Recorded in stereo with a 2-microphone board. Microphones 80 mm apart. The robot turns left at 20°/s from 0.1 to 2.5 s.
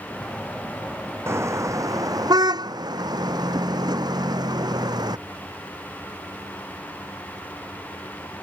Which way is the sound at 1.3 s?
30° right (ahead or behind).